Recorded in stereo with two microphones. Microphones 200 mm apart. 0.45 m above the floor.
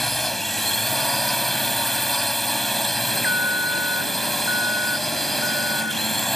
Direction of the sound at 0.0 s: Centre (ahead or behind).